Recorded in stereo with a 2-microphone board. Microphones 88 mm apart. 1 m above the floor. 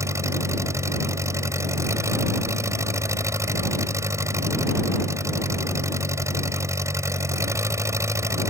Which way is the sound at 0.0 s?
35° right (ahead or behind).